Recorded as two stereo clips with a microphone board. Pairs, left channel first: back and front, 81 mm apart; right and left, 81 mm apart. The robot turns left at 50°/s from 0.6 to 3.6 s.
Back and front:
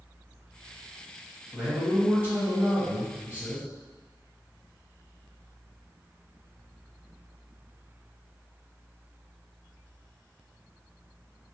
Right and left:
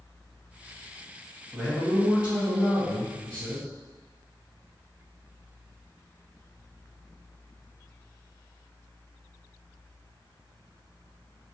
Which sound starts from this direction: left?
A man speaking, at 1.5 s.